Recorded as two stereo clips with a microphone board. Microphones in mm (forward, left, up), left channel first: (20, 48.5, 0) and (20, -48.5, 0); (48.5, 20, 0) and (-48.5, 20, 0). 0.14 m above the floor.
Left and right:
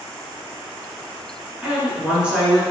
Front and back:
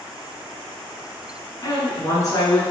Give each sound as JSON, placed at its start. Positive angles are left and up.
{"t": 1.6, "sound": "a woman speaking", "azimuth_deg": -15, "distance_m": 1.4}